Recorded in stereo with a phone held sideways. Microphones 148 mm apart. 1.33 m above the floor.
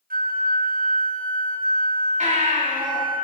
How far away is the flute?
About 0.6 m.